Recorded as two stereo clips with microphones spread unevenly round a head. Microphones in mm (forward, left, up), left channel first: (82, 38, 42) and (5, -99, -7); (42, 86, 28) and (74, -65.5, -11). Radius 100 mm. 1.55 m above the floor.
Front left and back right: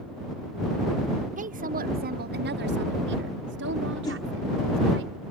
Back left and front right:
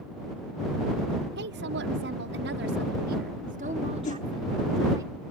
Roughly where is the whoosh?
Behind left.